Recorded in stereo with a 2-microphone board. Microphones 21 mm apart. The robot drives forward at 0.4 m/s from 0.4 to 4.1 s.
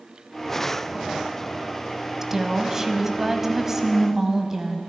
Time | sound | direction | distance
2.2 | a woman speaking | 20° right (ahead or behind) | 1.1 m